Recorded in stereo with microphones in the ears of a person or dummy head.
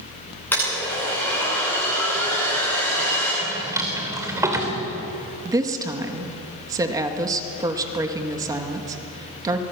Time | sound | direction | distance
0.5 | a blender | 10° left (ahead or behind) | 9.5 m
3.4 | a drawer | 20° right (ahead or behind) | 2.5 m
5.5 | a woman speaking | 20° right (ahead or behind) | 2 m